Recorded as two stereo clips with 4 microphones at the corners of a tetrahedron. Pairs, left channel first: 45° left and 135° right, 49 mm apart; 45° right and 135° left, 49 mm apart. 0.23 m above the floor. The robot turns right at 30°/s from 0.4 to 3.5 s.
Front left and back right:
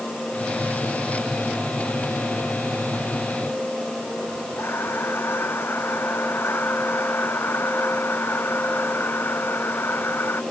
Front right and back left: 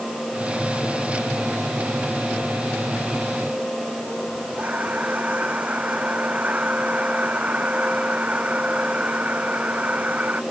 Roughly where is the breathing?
Left.